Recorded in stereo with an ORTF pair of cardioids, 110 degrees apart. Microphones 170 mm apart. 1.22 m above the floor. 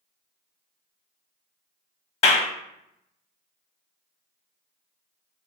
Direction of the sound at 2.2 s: 40° left.